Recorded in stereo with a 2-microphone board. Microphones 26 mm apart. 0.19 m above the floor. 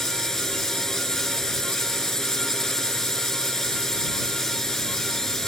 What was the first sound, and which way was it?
A drone, 20° left (ahead or behind).